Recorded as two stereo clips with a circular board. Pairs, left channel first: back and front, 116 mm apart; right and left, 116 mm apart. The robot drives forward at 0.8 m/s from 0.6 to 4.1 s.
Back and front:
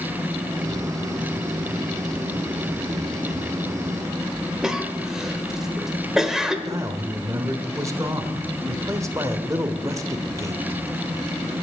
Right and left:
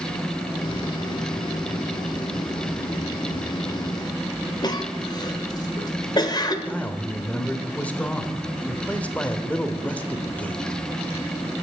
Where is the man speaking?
25° right, 1.3 m.